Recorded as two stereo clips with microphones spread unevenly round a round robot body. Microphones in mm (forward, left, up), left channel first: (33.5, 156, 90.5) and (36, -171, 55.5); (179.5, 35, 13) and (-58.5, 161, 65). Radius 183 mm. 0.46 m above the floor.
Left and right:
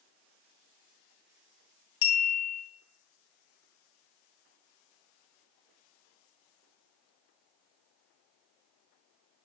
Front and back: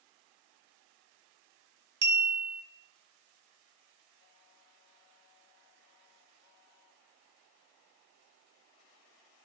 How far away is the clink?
About 0.5 m.